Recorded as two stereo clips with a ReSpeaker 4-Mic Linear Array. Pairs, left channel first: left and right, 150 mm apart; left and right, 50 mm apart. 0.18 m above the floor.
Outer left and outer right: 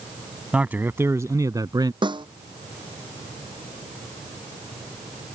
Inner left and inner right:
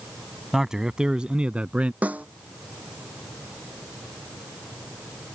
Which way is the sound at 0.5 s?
10° right (ahead or behind).